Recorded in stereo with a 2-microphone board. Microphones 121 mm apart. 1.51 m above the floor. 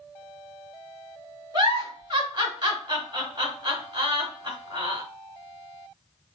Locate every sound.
1.5 s a giggle: 40° right (ahead or behind), 1.7 m